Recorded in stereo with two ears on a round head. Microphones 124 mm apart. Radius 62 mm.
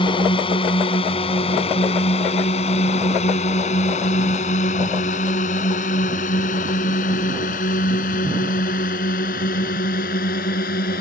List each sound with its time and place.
0.0 s a drone: 35° left (ahead or behind); by 11.0 s 70° left (ahead or behind)